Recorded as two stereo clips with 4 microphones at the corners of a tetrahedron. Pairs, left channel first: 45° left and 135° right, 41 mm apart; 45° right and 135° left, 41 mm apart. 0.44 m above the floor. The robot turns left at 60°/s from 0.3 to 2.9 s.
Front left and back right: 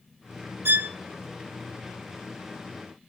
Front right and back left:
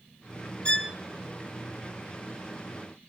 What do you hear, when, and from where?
0.7 s a violin: 110° right, 0.5 m; by 0.9 s 125° right, 0.5 m